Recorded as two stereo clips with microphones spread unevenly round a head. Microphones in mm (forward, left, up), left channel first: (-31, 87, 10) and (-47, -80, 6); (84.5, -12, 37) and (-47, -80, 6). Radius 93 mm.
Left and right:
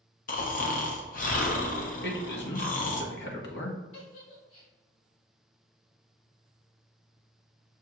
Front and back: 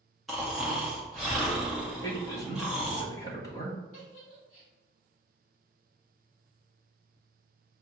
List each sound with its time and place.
0.3 s snoring: 120° left, 0.8 m
2.0 s a man speaking: 105° left, 1.3 m
3.9 s a giggle: 80° left, 1.7 m